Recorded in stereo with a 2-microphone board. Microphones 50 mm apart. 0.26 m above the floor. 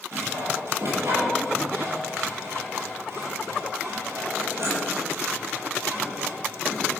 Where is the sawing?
60° right (ahead or behind), 7 m.